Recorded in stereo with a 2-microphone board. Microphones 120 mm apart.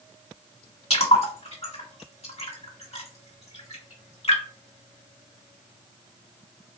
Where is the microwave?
I don't hear a microwave.